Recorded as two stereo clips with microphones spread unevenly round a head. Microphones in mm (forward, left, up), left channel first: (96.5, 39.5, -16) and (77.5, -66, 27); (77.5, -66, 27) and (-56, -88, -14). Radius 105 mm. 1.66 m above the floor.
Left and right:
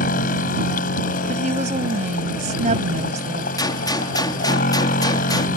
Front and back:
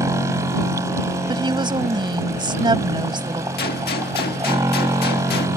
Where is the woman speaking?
110° right.